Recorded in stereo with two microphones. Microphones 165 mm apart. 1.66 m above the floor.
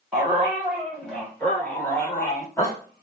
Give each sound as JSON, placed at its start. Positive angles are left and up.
{"t": 0.1, "sound": "a dog barking", "side_deg": -5, "distance_m": 1.7}